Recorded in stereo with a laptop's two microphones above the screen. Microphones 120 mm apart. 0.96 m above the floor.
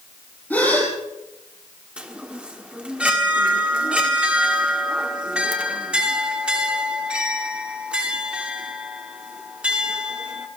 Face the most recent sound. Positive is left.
turn(degrees=-10)  # may be behind; listen again after turning